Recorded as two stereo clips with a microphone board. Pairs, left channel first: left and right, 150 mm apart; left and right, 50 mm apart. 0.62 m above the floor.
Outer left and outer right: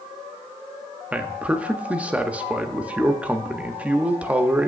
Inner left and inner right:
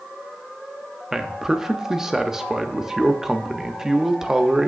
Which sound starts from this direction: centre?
A man speaking, at 1.1 s.